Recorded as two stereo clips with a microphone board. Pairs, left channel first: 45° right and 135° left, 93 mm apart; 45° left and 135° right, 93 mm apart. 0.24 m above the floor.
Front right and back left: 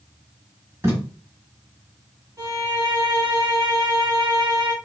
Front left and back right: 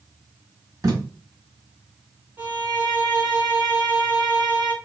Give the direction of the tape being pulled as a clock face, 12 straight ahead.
6 o'clock.